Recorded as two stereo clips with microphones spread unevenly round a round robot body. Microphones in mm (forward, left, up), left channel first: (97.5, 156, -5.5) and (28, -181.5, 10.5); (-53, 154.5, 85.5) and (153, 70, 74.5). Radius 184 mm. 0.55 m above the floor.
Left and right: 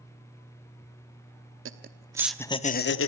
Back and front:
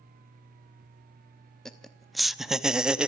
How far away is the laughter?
About 1.0 m.